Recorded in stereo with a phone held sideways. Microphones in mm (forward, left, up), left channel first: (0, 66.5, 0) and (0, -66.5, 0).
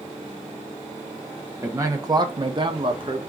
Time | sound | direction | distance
1.6 | a man speaking | 20° right (ahead or behind) | 0.9 m